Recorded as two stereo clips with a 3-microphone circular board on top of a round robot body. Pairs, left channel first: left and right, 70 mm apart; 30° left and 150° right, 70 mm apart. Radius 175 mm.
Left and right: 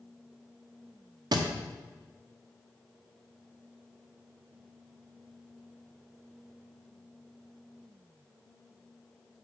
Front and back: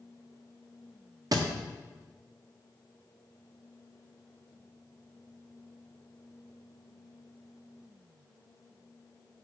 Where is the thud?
115° right, 0.9 m.